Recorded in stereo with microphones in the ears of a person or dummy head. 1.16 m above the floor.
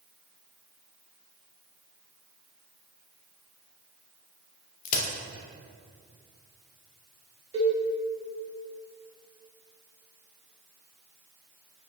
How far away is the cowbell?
About 1.4 m.